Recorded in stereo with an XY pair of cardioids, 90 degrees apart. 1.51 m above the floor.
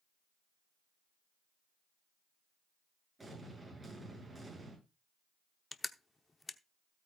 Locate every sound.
3.2 s an explosion: 20° right, 8.5 m
5.7 s crushing: 25° left, 0.8 m